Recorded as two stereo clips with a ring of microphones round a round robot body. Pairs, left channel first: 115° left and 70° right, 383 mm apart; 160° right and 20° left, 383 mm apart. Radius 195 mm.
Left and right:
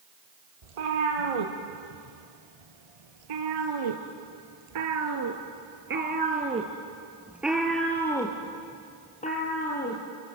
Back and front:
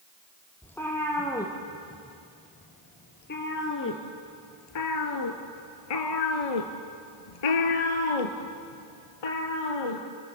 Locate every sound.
0.6 s a cat meowing: 70° right, 3.5 m; by 10.0 s straight behind, 3 m